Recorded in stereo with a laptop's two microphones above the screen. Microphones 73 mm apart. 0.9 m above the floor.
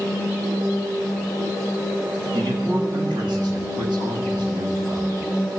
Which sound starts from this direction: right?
A man speaking, at 2.3 s.